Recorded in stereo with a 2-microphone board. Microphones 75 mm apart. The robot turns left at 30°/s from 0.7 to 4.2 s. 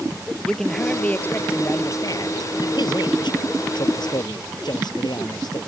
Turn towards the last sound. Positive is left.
turn(degrees=70)